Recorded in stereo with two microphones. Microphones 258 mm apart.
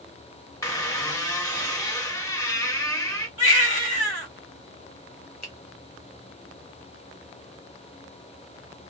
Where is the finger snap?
75° left (ahead or behind), 1.0 m.